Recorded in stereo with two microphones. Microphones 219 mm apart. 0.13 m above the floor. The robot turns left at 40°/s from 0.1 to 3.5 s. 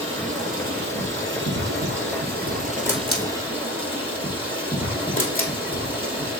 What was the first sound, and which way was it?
Running water, 35° right.